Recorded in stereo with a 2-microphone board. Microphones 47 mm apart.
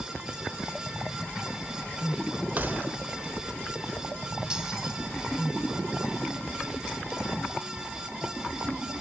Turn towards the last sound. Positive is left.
turn(degrees=-15)  # may be behind; listen again after turning